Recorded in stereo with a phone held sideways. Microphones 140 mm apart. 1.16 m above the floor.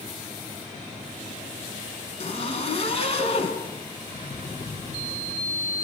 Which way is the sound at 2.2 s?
45° left (ahead or behind).